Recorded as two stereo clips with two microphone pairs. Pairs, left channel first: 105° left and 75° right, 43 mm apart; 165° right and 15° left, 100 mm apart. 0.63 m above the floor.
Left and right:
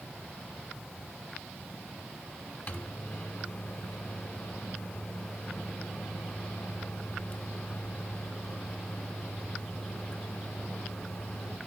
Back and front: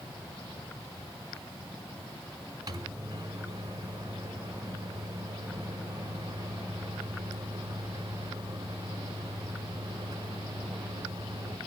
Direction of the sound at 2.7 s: 60° left.